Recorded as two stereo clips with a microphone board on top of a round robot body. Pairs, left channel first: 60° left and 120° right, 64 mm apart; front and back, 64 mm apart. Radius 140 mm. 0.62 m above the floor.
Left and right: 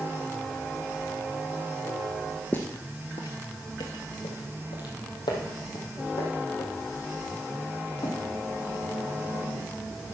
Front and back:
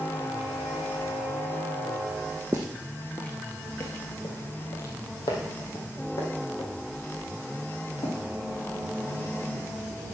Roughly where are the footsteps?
Behind left.